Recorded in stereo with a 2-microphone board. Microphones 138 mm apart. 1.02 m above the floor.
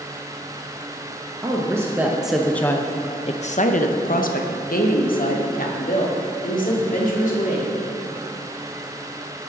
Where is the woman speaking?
25° right (ahead or behind), 1.0 m; by 7.7 s 65° left (ahead or behind), 2.5 m.